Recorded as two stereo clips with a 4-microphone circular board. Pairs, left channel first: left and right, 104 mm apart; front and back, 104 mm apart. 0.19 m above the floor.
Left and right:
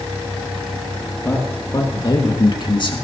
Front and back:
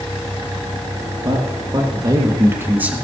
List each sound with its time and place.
1.2 s a man speaking: 145° left, 3.5 m; by 3.0 s 105° left, 2 m